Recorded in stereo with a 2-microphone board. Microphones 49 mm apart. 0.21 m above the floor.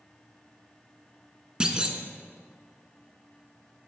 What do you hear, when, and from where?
1.6 s a clunk: 20° right (ahead or behind), 0.5 m